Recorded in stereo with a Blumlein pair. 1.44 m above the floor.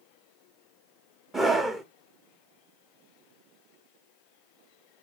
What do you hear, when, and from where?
1.3 s a scream: 10° right, 0.6 m